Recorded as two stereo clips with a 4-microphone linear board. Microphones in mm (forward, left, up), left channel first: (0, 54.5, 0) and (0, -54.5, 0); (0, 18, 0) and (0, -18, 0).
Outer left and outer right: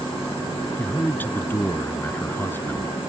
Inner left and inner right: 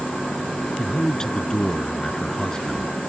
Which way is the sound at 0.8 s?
20° left (ahead or behind).